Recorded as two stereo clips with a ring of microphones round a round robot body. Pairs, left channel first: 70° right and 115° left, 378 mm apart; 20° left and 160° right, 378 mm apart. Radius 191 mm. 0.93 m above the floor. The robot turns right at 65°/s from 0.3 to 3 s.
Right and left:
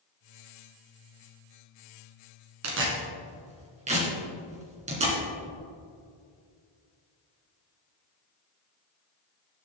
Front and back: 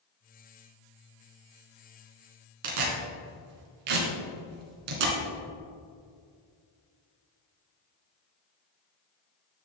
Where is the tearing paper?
160° left, 2.5 m; by 5.2 s 175° right, 2.5 m.